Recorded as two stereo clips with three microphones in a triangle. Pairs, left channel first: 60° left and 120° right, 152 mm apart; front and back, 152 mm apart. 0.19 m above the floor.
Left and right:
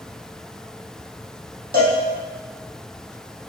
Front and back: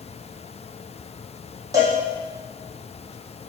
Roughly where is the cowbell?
Right.